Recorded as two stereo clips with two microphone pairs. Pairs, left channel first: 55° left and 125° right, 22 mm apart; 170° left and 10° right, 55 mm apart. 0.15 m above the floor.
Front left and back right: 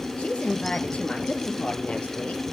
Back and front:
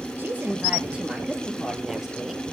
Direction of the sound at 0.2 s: 45° left.